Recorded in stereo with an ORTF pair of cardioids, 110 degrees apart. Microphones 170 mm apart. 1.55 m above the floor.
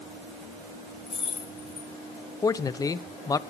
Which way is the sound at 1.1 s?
35° left.